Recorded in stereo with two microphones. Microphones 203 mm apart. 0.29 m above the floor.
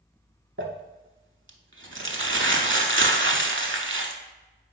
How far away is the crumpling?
About 0.5 m.